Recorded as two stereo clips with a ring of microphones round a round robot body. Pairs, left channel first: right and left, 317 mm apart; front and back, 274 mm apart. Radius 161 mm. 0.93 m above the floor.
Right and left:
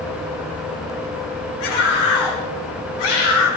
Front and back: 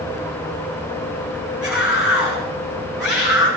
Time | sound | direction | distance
1.6 | a scream | 95° right | 8.5 m